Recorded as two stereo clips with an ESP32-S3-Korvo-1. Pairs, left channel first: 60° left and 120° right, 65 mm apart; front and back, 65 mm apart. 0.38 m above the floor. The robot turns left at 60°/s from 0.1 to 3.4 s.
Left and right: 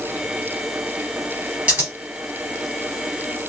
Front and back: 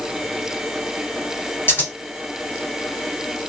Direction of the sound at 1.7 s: 55° right.